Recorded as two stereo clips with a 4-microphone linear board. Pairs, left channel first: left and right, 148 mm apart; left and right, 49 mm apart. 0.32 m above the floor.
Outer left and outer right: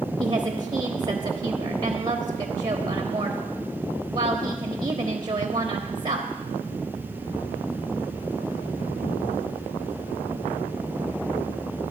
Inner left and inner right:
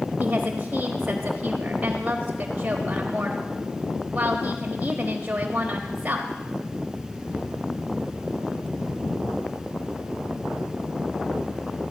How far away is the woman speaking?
About 1.0 m.